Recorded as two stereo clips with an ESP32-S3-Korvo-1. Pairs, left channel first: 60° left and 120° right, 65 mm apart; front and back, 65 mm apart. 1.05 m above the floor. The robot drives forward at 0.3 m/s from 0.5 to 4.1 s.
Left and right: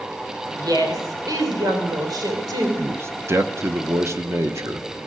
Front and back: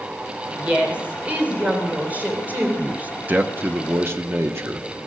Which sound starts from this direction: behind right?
A man speaking, at 2.8 s.